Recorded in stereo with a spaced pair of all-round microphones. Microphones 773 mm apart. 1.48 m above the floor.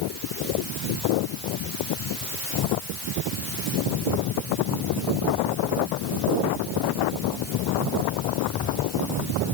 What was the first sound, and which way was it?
Only background noise.